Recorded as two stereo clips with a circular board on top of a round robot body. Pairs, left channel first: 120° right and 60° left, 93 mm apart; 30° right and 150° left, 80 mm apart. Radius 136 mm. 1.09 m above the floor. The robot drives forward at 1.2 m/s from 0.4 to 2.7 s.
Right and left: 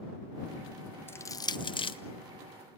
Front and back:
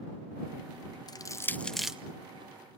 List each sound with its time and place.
1.1 s crushing: 55° right, 1.0 m; by 2.0 s 130° right, 1.1 m